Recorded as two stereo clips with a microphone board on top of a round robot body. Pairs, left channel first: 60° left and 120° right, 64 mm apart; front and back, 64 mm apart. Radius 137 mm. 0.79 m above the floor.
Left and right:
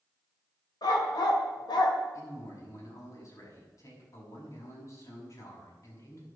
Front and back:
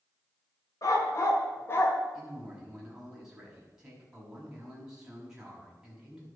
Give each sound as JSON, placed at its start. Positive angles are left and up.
{"t": 0.8, "sound": "a dog barking", "azimuth_deg": 40, "distance_m": 1.9}
{"t": 2.1, "sound": "a man speaking", "azimuth_deg": 95, "distance_m": 6.0}